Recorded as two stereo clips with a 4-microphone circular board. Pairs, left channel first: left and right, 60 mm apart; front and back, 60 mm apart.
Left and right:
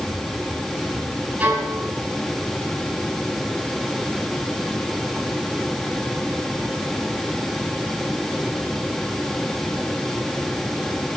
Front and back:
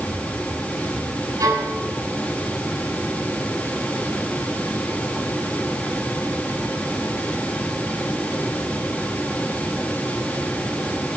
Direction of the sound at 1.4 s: 155° right.